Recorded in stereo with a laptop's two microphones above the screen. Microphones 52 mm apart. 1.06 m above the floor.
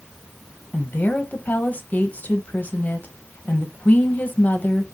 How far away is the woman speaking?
About 0.8 m.